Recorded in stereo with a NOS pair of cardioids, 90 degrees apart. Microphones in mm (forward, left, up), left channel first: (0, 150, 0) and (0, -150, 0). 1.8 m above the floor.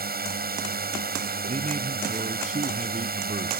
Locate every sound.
0.0 s a drone: 30° right
1.5 s a man speaking: 25° right